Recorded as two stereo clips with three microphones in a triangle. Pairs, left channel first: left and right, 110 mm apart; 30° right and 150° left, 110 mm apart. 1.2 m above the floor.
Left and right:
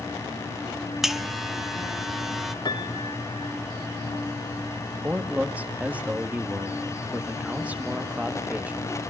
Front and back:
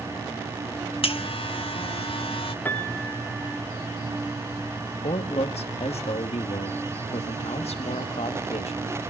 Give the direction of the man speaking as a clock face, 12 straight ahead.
12 o'clock.